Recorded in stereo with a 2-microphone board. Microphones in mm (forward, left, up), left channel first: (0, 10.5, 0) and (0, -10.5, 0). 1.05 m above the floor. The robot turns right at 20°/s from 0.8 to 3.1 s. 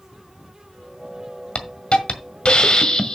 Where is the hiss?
105° left, 1.6 m; by 3.1 s 135° left, 1.6 m.